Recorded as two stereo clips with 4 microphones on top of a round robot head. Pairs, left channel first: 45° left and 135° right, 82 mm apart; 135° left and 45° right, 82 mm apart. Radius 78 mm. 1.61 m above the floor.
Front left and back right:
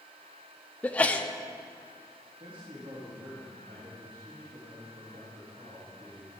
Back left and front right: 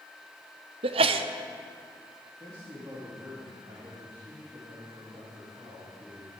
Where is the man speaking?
95° right, 2.5 m.